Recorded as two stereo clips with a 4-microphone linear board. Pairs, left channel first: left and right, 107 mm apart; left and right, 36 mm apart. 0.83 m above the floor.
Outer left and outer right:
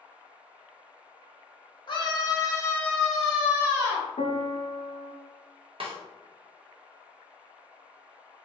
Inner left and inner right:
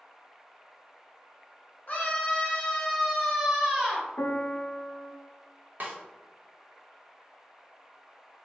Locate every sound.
1.9 s a scream: 45° left (ahead or behind), 1.1 m; by 4.1 s 30° right (ahead or behind), 1.2 m
4.2 s a piano: 65° left (ahead or behind), 0.6 m
5.8 s a snare drum: 60° right (ahead or behind), 0.9 m